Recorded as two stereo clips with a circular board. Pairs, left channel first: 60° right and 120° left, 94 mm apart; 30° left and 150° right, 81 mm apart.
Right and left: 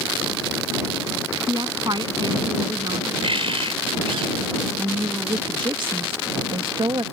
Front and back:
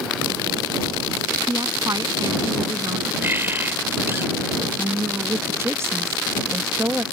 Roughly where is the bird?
Behind left.